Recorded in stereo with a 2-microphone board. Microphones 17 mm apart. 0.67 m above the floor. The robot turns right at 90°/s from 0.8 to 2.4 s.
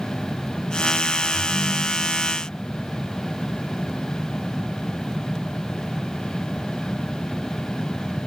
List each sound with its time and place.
1.3 s a ringtone: 75° left, 4 m; by 2.3 s 165° left, 4 m